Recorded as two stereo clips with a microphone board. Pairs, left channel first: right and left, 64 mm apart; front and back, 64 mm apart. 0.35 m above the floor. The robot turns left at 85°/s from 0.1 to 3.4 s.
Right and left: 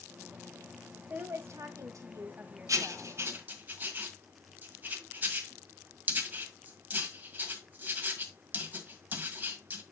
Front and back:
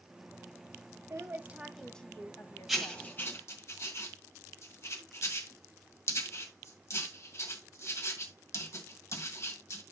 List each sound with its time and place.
1.1 s a woman speaking: 150° left, 1.5 m; by 3.1 s 25° right, 1.5 m
2.7 s writing: 95° left, 1.7 m; by 9.8 s 35° left, 1.7 m